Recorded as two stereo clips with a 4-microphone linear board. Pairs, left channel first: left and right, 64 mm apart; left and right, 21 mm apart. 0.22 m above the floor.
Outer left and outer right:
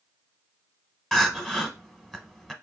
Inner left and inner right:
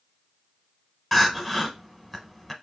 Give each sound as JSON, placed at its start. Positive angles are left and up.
{"t": 1.1, "sound": "crying", "side_deg": 5, "distance_m": 0.7}